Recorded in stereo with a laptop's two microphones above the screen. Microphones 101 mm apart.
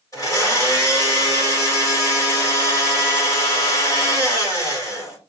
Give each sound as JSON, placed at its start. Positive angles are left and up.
{"t": 0.1, "sound": "a blender", "side_deg": 35, "distance_m": 2.5}